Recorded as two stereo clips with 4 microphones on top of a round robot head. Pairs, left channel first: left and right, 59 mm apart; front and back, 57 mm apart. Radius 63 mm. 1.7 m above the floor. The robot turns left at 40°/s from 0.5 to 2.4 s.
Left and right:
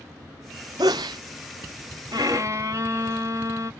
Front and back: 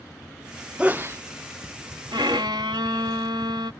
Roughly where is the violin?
Behind right.